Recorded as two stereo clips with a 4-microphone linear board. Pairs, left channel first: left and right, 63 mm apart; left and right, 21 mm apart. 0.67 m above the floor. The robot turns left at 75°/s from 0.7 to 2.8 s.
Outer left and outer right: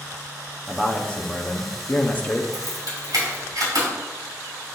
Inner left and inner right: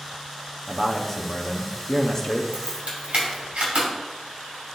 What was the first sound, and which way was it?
A man speaking, 170° left.